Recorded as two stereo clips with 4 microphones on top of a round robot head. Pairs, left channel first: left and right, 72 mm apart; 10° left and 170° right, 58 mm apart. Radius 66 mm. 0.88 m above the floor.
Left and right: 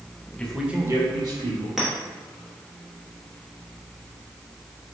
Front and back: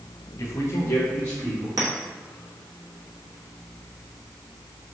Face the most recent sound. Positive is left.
turn(degrees=-175)